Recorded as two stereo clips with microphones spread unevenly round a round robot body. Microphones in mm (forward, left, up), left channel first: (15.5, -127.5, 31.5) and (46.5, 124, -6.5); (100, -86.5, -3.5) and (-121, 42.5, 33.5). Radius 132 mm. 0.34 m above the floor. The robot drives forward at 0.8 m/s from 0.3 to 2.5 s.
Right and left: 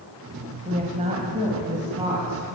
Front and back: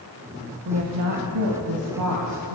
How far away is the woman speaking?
About 1.2 m.